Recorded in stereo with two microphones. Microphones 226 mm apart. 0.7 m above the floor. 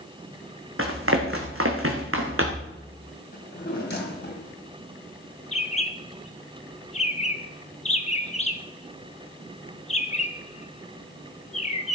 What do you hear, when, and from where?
0.8 s running footsteps: 70° right (ahead or behind), 1.9 m; by 2.7 s 65° right (ahead or behind), 2.5 m
3.3 s a drawer: 50° left (ahead or behind), 2.5 m
5.5 s a bird: 30° left (ahead or behind), 0.9 m